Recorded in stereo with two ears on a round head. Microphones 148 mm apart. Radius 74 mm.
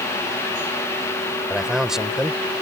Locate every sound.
1.5 s a man speaking: 5° right (ahead or behind)